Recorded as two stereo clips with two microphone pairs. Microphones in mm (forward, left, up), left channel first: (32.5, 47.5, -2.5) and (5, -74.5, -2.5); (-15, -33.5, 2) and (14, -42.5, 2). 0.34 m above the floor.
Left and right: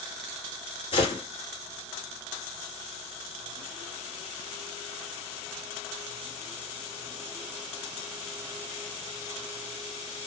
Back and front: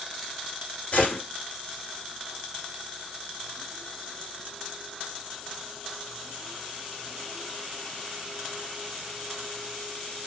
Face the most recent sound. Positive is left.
turn(degrees=120)